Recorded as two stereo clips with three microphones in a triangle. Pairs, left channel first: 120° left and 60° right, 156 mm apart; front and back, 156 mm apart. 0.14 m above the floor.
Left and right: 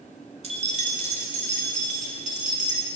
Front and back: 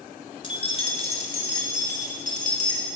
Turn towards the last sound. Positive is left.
turn(degrees=-30)